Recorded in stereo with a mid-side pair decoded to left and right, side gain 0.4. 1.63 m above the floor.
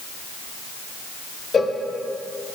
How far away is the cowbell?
About 1.1 m.